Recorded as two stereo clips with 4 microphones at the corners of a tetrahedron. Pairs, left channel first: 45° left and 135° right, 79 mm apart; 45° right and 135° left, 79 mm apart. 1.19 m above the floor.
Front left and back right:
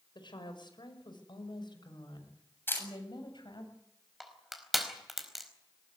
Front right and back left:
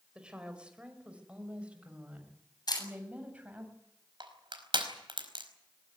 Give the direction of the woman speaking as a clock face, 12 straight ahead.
10 o'clock.